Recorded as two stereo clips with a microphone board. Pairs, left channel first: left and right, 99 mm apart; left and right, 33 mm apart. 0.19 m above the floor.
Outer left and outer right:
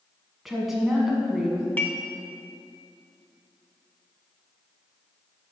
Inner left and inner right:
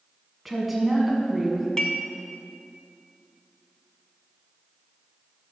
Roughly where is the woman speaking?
Centre.